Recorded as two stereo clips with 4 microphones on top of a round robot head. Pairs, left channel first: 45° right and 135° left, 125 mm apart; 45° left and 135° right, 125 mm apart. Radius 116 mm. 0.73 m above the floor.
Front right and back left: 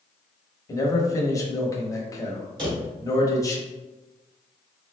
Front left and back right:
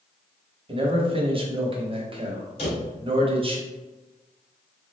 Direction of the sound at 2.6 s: 85° left.